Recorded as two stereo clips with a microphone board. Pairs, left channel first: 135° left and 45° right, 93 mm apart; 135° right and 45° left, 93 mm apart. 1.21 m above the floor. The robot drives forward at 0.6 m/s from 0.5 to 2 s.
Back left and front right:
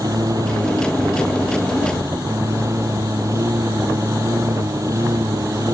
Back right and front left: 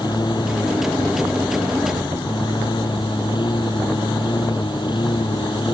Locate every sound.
0.0 s a lawn mower: 95° right; by 5.8 s 100° right